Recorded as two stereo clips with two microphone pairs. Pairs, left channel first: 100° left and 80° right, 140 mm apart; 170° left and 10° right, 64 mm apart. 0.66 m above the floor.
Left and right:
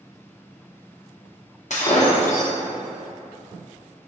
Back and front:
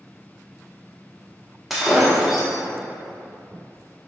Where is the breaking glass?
80° left, 0.7 m.